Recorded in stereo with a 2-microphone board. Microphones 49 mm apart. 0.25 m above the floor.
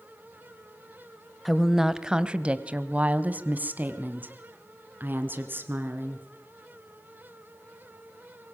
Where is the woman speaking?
Centre (ahead or behind), 1.1 m; by 6.3 s 45° right (ahead or behind), 3.5 m.